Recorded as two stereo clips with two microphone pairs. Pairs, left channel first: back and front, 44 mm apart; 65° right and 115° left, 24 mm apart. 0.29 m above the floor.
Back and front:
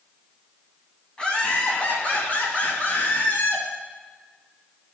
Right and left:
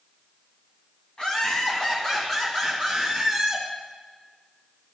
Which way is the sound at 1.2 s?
115° right.